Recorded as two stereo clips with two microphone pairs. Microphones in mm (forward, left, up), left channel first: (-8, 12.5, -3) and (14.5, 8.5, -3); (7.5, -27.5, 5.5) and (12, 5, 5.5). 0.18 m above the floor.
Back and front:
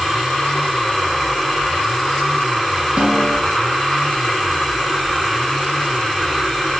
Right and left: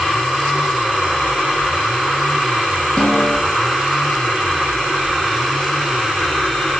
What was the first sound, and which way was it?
A snare drum, 35° right.